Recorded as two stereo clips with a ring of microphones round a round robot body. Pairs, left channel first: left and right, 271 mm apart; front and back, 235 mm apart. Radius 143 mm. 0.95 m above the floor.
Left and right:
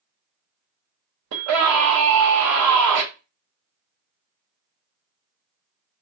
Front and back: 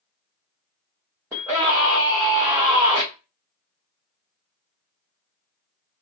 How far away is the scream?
About 0.8 m.